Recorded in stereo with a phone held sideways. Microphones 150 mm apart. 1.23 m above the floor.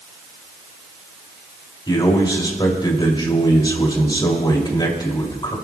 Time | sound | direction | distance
1.9 | a man speaking | 30° left (ahead or behind) | 2.5 m